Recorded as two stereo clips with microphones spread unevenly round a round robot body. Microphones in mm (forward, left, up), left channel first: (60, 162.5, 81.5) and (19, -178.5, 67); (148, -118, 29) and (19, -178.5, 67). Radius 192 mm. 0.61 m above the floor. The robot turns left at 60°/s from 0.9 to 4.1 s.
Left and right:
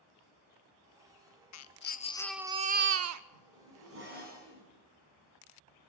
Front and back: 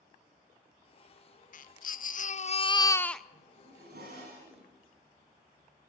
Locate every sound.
1.5 s a baby crying: 40° left, 1.0 m; by 3.2 s 60° right, 1.0 m
3.3 s a zipper: 115° right, 6 m; by 4.7 s 160° right, 6 m